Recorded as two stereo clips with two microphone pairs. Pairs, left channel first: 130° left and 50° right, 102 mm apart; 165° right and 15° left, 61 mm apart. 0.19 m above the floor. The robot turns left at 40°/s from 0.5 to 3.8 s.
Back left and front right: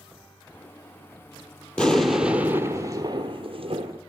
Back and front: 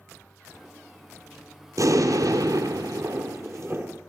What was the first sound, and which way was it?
An explosion, 50° left.